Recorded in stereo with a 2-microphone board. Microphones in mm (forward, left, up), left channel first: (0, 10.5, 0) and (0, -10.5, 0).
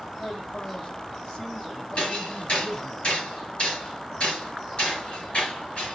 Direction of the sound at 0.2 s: 60° left (ahead or behind).